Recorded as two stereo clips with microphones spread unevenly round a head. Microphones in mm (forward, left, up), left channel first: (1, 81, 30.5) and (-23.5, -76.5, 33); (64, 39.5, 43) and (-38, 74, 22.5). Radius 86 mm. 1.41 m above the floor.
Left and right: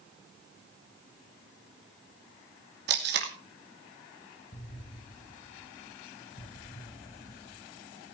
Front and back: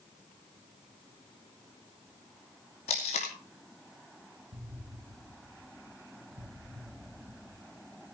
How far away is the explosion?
About 3.5 m.